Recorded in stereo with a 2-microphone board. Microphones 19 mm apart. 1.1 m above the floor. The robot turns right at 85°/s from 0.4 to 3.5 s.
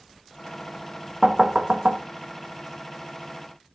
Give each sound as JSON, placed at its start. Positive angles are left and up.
{"t": 1.2, "sound": "knocking", "side_deg": -25, "distance_m": 0.7}